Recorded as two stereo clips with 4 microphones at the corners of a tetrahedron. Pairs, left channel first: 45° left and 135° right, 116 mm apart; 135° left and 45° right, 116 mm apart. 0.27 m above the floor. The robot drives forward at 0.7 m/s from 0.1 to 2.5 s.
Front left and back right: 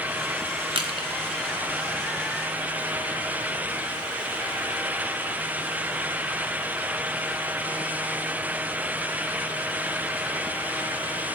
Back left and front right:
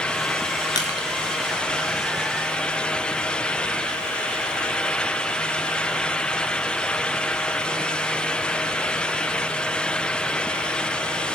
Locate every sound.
0.8 s crushing: 175° right, 1.6 m